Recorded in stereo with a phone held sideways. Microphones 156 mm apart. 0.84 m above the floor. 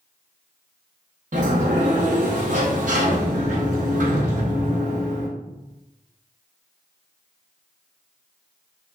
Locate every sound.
1.3 s a sliding door: 55° right (ahead or behind), 0.8 m